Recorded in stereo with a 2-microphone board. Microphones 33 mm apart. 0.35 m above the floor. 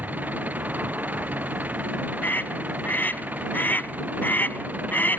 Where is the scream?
65° left (ahead or behind).